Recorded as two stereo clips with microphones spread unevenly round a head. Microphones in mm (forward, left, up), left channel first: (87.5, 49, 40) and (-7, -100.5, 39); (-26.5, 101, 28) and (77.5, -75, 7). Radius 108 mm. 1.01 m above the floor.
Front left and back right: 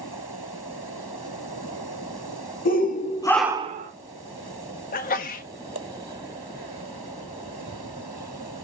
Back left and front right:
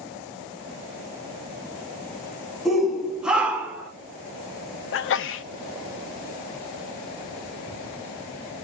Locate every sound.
2.6 s a shout: 25° left, 1.2 m; by 3.9 s 135° right, 0.9 m
4.9 s a sneeze: 95° left, 0.5 m